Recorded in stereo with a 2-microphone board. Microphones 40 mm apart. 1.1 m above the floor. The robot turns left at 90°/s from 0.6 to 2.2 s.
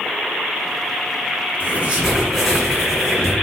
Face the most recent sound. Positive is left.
turn(degrees=175)